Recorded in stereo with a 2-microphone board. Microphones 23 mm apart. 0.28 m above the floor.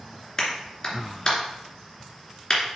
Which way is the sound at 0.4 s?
30° left (ahead or behind).